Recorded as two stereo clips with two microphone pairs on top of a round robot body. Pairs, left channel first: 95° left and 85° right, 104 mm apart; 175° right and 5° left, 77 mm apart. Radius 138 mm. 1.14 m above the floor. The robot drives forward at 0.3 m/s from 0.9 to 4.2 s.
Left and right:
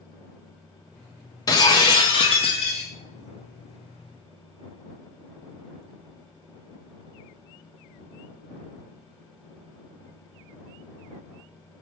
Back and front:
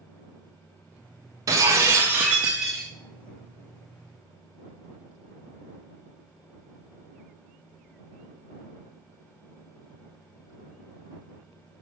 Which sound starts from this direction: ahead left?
Breaking glass, at 1.5 s.